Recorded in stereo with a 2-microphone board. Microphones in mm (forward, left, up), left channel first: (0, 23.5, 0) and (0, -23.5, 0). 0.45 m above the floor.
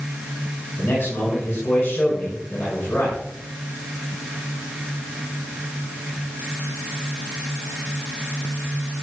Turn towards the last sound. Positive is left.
turn(degrees=55)  # may be behind; listen again after turning